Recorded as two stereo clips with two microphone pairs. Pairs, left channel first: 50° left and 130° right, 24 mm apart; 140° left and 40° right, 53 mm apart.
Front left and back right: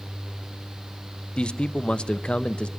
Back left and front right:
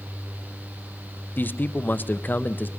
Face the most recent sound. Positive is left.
turn(degrees=90)